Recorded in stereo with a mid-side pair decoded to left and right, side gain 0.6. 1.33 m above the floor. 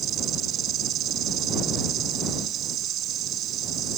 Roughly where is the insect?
Ahead right.